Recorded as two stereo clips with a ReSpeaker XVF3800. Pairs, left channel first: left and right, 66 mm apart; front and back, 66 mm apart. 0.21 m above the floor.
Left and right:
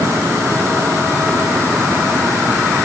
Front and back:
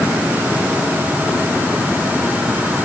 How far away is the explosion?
No explosion in this recording.